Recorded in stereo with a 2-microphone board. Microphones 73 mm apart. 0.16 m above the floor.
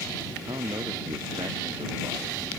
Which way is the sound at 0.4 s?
70° right (ahead or behind).